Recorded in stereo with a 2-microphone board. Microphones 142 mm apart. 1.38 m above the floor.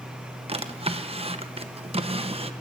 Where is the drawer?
45° right (ahead or behind), 0.7 m.